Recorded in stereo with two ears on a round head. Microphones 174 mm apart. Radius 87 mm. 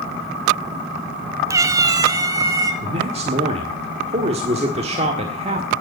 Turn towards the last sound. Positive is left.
turn(degrees=-35)  # may be behind; listen again after turning